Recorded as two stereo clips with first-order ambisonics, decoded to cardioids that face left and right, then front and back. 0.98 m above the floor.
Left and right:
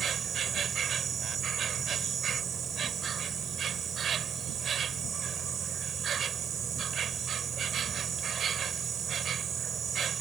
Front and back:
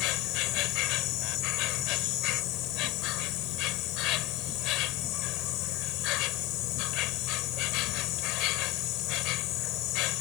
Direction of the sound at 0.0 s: 30° right.